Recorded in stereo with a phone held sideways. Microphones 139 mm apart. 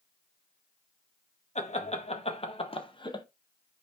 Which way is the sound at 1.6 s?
55° left (ahead or behind).